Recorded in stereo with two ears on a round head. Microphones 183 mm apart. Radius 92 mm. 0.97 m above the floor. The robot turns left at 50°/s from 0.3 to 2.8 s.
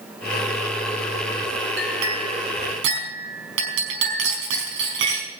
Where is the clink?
60° right, 5 m; by 5.3 s 110° right, 5 m.